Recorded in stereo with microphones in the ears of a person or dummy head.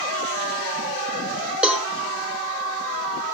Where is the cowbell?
5° right (ahead or behind), 1.3 m.